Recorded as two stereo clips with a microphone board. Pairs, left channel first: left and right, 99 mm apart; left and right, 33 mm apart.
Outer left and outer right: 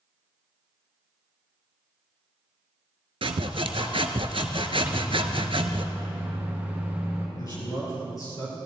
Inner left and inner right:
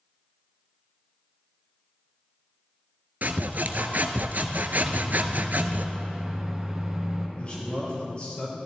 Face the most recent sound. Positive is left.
turn(degrees=40)  # may be behind; listen again after turning